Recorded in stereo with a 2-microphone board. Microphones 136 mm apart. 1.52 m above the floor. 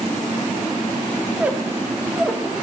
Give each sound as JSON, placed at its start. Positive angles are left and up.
{"t": 1.4, "sound": "a squeak", "side_deg": -10, "distance_m": 0.7}